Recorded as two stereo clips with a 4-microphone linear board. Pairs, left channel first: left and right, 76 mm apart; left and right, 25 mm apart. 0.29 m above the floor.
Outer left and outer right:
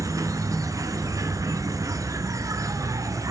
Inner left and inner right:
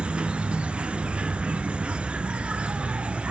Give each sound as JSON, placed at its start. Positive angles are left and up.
{"t": 0.0, "sound": "an insect", "side_deg": -45, "distance_m": 0.7}